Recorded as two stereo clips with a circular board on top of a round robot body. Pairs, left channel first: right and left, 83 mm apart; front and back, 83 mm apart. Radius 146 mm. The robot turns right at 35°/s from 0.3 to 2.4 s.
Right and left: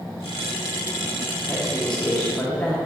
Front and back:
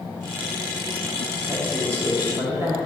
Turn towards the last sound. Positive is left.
turn(degrees=-145)